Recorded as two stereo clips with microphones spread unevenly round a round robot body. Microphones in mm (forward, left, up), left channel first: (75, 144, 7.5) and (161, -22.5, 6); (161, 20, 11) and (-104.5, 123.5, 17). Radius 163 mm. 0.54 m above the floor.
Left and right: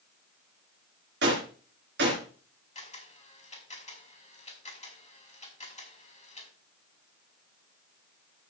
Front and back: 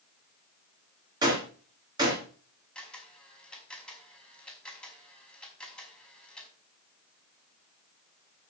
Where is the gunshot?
125° right, 3 m.